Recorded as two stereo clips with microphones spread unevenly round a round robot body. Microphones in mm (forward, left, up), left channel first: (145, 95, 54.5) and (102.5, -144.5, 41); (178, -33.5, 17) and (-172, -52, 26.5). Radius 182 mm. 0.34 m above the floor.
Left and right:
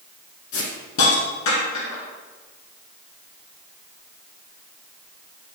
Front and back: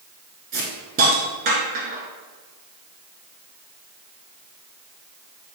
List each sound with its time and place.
0.5 s a hiss: 115° left, 1.0 m